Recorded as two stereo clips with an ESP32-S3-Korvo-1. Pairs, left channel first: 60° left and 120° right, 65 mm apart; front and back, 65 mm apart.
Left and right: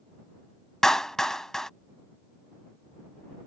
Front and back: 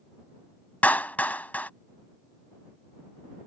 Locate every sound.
0.8 s a clap: 10° right